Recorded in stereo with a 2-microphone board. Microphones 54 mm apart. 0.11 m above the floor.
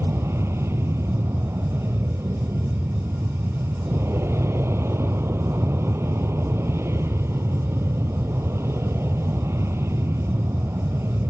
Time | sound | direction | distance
0.0 | an aircraft | 55° right (ahead or behind) | ?